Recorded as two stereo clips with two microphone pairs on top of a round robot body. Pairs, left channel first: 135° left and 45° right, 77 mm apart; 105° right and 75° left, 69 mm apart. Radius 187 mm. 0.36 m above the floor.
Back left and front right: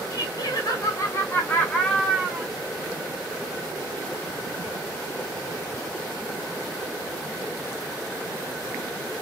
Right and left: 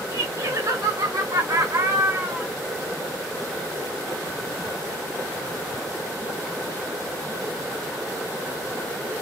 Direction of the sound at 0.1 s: 115° left.